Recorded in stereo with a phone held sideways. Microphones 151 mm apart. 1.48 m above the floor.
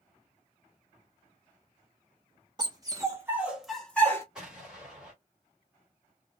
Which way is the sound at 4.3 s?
5° right (ahead or behind).